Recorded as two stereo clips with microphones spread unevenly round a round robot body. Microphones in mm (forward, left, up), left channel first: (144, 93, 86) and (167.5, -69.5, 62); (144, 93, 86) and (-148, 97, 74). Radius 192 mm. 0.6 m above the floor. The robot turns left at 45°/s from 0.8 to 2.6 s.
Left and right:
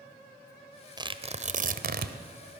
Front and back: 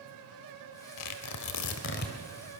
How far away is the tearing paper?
About 1.3 m.